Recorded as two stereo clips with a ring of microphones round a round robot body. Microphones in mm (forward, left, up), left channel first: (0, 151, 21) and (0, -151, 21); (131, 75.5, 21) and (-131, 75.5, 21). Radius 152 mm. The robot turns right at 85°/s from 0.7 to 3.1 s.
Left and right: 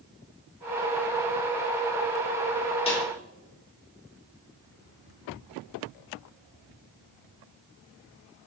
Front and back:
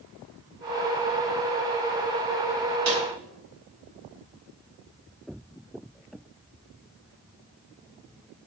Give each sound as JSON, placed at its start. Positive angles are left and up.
{"t": 2.9, "sound": "a snare drum", "azimuth_deg": 160, "distance_m": 3.5}